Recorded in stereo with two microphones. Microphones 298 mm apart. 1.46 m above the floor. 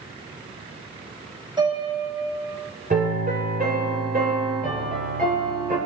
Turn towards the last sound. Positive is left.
turn(degrees=-30)  # may be behind; listen again after turning